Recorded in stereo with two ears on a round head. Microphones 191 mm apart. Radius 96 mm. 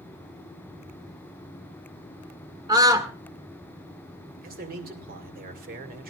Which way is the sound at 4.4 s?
45° right (ahead or behind).